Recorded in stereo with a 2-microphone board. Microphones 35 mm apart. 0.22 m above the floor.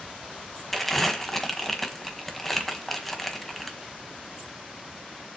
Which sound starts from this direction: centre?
Crumpling, at 0.7 s.